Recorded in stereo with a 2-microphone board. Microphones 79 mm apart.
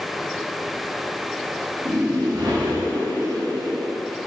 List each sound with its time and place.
1.9 s a whoosh: 75° right (ahead or behind), 2.5 m